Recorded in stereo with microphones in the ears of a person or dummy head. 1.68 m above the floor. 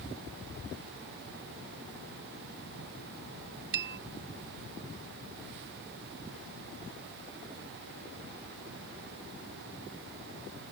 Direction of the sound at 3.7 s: 60° right (ahead or behind).